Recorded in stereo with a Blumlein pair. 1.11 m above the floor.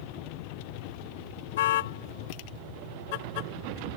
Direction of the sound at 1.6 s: 55° left.